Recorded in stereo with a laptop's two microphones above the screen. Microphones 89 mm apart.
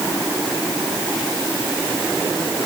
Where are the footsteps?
I don't hear footsteps.